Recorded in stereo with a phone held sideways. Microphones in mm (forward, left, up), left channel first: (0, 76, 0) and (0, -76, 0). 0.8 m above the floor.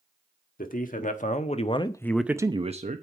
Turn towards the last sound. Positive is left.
turn(degrees=-55)  # may be behind; listen again after turning